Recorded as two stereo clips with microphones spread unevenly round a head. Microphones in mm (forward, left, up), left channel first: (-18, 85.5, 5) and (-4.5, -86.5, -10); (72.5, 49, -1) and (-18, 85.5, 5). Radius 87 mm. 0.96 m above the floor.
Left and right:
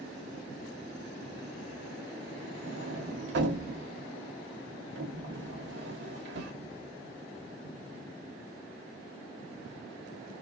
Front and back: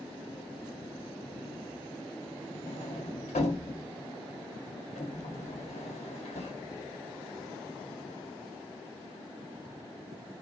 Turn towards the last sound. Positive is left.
turn(degrees=-60)